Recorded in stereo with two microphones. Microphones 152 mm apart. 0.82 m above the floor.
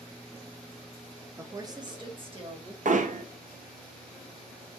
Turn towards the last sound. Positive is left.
turn(degrees=-60)  # may be behind; listen again after turning